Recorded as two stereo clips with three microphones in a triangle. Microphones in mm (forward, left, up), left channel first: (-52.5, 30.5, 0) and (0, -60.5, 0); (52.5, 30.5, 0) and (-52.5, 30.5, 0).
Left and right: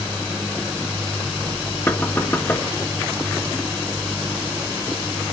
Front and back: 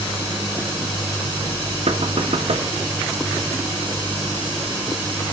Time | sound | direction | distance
1.9 | knocking | 175° right | 1.2 m